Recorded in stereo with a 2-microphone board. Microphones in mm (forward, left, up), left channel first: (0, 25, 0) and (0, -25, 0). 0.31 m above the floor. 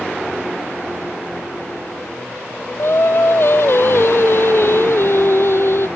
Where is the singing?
55° left (ahead or behind).